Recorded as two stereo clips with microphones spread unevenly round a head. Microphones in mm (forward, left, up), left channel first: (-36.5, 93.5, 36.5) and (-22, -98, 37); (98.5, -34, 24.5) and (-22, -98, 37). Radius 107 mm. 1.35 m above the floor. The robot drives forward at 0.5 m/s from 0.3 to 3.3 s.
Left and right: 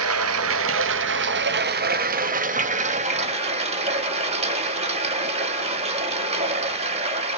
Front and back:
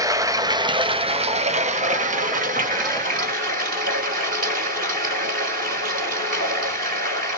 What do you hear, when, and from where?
0.0 s running water: 90° right, 1.1 m; by 7.4 s 145° right, 1.9 m